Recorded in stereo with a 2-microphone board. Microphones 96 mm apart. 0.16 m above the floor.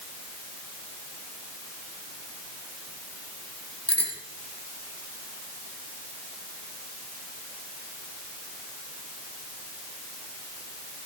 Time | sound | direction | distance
3.9 | a bicycle bell | 10° left (ahead or behind) | 4.5 m